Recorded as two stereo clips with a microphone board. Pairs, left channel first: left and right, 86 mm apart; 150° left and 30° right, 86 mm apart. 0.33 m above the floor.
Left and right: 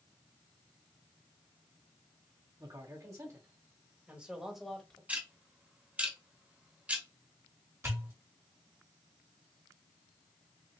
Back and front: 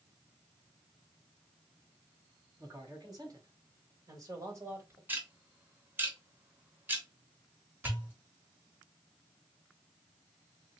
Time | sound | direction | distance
2.6 | a man speaking | 70° right | 1.8 m
5.1 | ticking | 45° right | 0.8 m
7.8 | a pop | 75° right | 1.5 m